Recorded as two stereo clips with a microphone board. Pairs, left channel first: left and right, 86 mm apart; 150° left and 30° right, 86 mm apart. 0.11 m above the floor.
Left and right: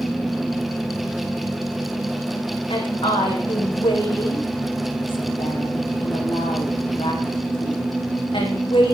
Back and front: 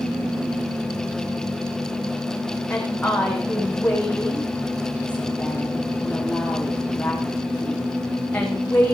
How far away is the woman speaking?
About 6 m.